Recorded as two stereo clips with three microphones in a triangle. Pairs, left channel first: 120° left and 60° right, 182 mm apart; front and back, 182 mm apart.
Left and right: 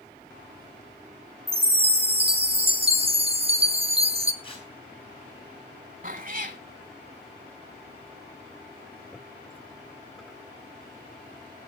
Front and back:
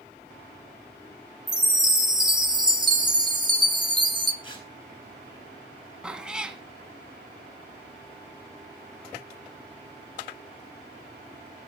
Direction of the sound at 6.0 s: 95° right.